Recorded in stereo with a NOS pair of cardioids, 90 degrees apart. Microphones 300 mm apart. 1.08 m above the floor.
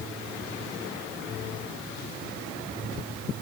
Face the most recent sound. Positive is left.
No sound to turn to.